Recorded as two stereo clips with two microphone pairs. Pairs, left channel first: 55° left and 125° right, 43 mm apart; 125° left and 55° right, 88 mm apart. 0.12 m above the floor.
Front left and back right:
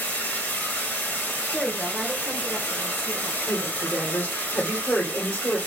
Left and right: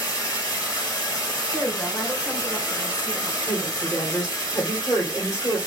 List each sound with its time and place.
0.0 s running water: 80° left, 2 m
1.5 s a woman speaking: 145° left, 1.2 m
3.5 s a woman speaking: 70° left, 2.5 m